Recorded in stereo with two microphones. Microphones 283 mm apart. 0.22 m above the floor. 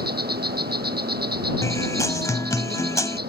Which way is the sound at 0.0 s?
35° right (ahead or behind).